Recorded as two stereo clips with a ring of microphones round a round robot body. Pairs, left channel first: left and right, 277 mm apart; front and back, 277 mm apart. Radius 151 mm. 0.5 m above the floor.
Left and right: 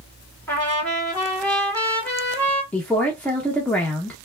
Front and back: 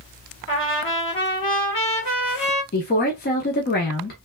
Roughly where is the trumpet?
Ahead.